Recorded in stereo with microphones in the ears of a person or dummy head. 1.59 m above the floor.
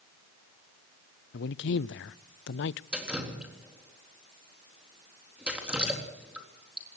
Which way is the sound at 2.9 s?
5° right (ahead or behind).